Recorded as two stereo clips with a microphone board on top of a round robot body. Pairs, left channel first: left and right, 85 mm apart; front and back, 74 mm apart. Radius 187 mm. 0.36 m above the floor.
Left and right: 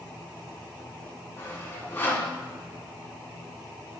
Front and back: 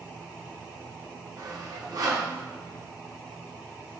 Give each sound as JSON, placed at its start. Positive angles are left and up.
{"t": 1.4, "sound": "sawing", "azimuth_deg": 155, "distance_m": 1.7}